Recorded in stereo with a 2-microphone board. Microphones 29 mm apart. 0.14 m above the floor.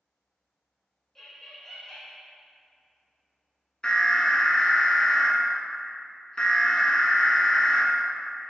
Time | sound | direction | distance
1.1 | laughter | 5° left (ahead or behind) | 1.2 m
3.8 | an alarm | 25° left (ahead or behind) | 1.2 m